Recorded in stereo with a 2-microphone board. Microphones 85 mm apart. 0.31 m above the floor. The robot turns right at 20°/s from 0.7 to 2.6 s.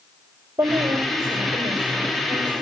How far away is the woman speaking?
About 7 m.